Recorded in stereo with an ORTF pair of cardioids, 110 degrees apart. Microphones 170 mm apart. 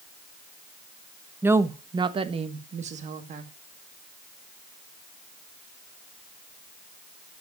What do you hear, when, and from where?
1.4 s a woman speaking: 10° right, 1.1 m; by 3.5 s 50° right, 2 m